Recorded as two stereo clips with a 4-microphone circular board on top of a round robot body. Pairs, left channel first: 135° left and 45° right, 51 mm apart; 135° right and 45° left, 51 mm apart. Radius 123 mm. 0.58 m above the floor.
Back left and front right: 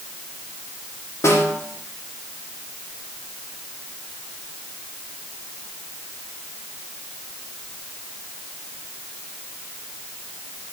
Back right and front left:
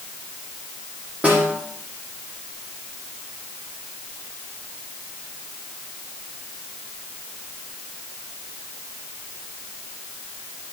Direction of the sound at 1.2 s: 105° left.